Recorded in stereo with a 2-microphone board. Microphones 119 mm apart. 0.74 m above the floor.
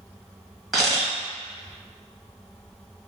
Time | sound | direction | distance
0.7 | a camera shutter | 5° right (ahead or behind) | 1.3 m